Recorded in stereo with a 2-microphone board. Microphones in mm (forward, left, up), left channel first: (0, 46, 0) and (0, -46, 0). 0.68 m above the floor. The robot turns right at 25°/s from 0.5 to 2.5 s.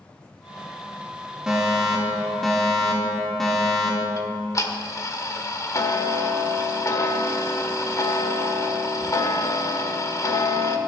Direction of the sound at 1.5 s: 10° right (ahead or behind).